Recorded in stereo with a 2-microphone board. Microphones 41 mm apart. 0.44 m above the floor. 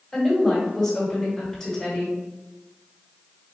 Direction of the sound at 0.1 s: 10° left (ahead or behind).